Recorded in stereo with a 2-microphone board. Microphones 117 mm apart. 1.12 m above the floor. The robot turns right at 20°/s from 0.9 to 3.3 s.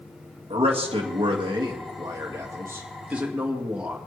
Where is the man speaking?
60° right, 1.9 m; by 4.0 s 10° right, 1.9 m.